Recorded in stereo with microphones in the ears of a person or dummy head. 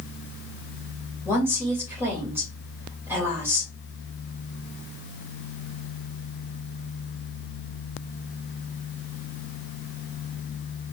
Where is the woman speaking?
15° right (ahead or behind), 2.5 m.